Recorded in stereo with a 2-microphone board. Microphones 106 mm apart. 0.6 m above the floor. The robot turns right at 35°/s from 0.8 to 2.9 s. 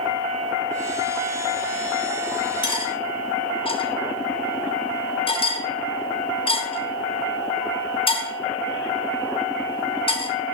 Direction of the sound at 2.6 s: 50° left (ahead or behind).